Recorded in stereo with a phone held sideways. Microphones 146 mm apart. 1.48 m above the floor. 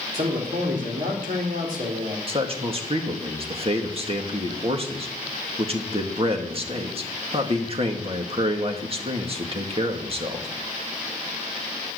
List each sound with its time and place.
0.1 s a man speaking: 70° right (ahead or behind), 3.5 m
2.3 s a man speaking: 40° right (ahead or behind), 1.9 m